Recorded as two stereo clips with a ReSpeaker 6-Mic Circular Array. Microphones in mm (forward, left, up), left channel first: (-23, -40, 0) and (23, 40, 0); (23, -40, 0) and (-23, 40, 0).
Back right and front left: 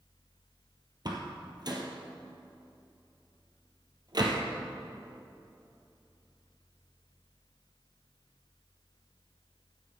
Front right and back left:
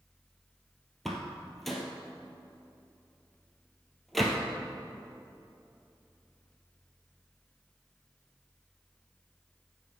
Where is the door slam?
30° left, 1.8 m.